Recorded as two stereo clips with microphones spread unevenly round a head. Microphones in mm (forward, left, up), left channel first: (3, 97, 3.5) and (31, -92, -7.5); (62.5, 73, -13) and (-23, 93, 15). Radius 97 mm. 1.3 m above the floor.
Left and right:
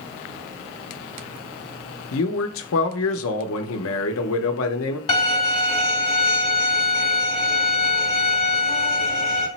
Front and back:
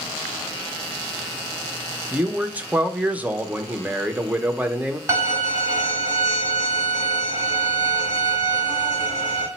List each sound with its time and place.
2.1 s a man speaking: 100° left, 0.7 m
5.1 s a violin: 145° left, 1.6 m